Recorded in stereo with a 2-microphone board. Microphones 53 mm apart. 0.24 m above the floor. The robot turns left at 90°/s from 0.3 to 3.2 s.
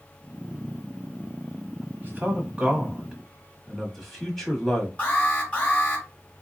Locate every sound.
2.0 s a man speaking: 35° right (ahead or behind), 1.5 m; by 4.9 s 5° left (ahead or behind), 1.5 m
5.0 s an alarm: 30° left (ahead or behind), 1.9 m